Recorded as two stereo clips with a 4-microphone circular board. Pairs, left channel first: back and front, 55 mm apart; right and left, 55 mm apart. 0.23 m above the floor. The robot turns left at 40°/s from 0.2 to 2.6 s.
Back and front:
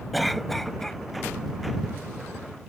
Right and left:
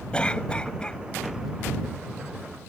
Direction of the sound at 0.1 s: 90° right.